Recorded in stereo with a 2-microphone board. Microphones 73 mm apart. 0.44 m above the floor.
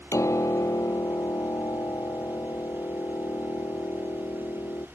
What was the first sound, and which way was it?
A piano, 45° left (ahead or behind).